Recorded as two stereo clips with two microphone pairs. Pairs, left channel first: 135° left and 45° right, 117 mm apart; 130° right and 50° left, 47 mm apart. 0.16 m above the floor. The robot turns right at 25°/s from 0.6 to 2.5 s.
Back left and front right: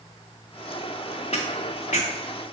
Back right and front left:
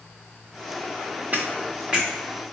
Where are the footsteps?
110° left, 0.8 m; by 2.1 s 130° left, 0.8 m.